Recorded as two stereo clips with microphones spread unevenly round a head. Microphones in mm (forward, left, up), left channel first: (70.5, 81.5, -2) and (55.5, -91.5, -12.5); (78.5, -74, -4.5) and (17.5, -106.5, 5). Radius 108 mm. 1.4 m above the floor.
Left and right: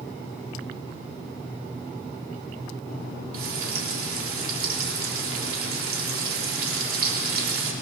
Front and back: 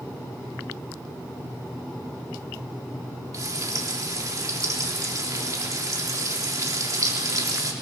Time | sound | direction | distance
3.3 | frying | 115° right | 3.5 m